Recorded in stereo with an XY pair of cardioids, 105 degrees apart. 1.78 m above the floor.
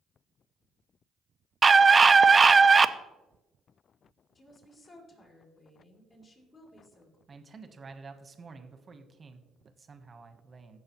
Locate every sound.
1.6 s a scream: 30° right, 0.6 m
4.3 s a woman speaking: 40° left, 4 m
7.3 s a man speaking: 30° right, 1.2 m